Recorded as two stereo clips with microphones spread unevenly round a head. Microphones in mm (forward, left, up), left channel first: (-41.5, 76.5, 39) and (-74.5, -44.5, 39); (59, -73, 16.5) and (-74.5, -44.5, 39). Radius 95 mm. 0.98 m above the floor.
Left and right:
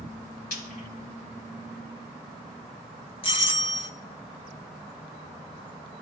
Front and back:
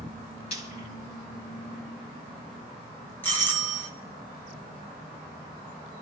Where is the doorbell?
55° left, 1.9 m.